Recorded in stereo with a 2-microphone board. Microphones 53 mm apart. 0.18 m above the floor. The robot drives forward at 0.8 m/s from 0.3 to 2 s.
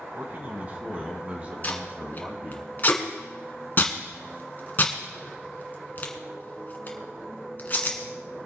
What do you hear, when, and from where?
0.1 s a man speaking: 35° right (ahead or behind), 1.9 m; by 2.6 s 30° right (ahead or behind), 2.5 m
1.6 s tape being pulled: 35° left (ahead or behind), 2.0 m; by 8.0 s 40° left (ahead or behind), 1.8 m